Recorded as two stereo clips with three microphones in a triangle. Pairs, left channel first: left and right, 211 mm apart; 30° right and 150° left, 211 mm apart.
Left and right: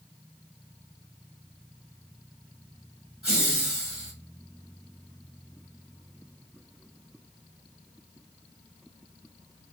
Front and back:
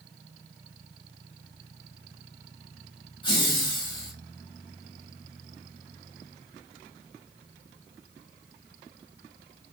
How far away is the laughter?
About 1.7 m.